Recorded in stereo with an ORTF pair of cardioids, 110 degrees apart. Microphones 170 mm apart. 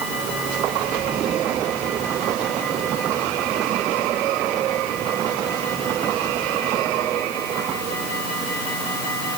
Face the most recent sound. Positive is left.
No sound to turn to.